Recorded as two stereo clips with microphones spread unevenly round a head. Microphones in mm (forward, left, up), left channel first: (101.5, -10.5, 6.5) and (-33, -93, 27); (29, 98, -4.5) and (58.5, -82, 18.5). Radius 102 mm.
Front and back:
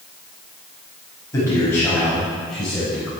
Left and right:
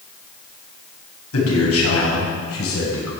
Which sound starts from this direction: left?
A man speaking, at 1.3 s.